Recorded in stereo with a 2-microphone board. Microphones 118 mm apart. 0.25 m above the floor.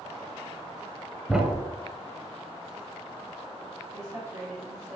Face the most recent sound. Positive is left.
turn(degrees=-25)  # may be behind; listen again after turning